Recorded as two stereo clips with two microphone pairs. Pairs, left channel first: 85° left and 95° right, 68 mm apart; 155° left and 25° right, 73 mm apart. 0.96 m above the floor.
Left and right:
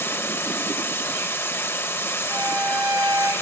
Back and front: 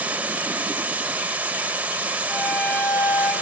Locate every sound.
0.0 s running water: 40° left, 1.0 m
2.3 s a violin: 120° right, 5 m